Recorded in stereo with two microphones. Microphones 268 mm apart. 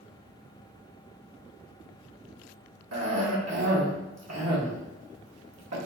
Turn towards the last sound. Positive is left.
turn(degrees=-70)  # may be behind; listen again after turning